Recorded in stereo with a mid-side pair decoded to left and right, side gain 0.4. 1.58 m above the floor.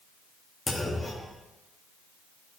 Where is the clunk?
20° left, 1.4 m.